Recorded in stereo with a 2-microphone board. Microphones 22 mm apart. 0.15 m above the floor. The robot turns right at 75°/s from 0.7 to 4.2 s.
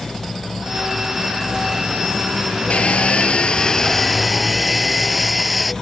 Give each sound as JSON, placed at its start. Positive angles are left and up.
{"t": 2.7, "sound": "sawing", "azimuth_deg": 70}